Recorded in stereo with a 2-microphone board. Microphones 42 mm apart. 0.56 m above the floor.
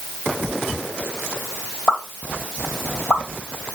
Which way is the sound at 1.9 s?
15° left (ahead or behind).